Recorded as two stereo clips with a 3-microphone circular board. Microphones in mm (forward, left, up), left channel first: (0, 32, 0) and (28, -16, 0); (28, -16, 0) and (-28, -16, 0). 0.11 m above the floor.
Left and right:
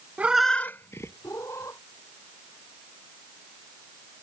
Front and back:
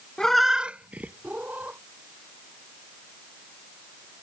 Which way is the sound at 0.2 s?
65° right.